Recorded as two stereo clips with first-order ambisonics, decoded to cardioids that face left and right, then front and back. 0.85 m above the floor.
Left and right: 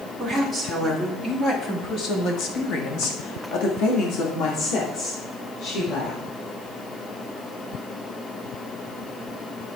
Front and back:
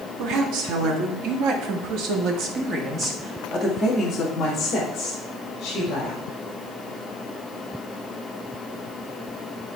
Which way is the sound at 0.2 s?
175° left.